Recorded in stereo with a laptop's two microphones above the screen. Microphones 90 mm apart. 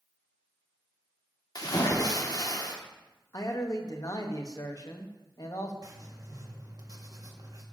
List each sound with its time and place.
1.6 s a splash: 45° left (ahead or behind), 1.4 m
3.3 s a man speaking: 40° left (ahead or behind), 1.0 m
5.8 s writing: 40° right (ahead or behind), 1.6 m